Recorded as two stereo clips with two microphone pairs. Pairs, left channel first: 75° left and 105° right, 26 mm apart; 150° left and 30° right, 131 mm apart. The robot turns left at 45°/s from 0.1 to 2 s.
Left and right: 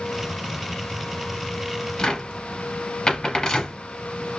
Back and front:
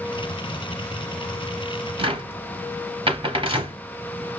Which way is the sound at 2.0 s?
15° left.